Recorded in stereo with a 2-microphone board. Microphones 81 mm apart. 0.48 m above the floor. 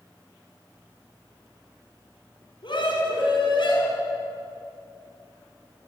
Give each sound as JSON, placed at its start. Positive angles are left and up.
{"t": 2.6, "sound": "a scream", "side_deg": 70, "distance_m": 4.5}